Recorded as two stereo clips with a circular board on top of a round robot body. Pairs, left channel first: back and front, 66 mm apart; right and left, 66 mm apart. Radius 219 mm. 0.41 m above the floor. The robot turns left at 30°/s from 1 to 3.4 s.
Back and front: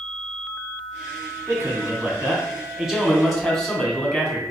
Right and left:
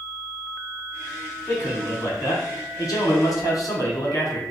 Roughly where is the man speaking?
Ahead right.